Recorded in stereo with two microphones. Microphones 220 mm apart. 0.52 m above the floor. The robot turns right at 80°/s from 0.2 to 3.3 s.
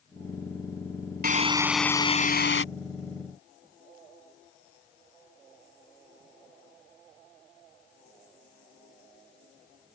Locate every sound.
1.2 s a drill: 45° right; by 2.6 s 70° left